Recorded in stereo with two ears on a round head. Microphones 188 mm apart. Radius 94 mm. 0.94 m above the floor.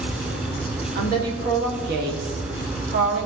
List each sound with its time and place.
0.9 s a woman speaking: 50° right (ahead or behind), 2.0 m